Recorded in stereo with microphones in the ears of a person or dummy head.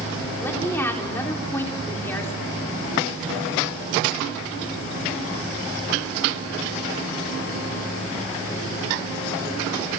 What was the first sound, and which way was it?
A woman speaking, 15° left (ahead or behind).